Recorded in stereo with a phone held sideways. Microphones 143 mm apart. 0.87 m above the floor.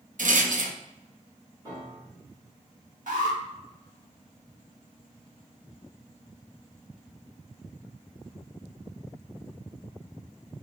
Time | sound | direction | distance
0.2 | a rattle | 70° right (ahead or behind) | 0.5 m
1.6 | a piano | 25° right (ahead or behind) | 2 m
3.1 | an alarm | 70° right (ahead or behind) | 1.5 m